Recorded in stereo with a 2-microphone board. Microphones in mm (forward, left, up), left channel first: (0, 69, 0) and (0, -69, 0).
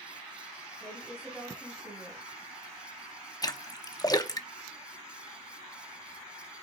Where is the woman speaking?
15° right (ahead or behind), 3.5 m.